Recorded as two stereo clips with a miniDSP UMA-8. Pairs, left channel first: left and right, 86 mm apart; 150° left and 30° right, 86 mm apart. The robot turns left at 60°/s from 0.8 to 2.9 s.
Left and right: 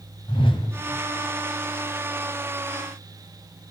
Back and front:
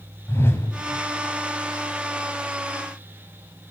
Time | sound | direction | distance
0.3 | a whoosh | 85° left | 2.5 m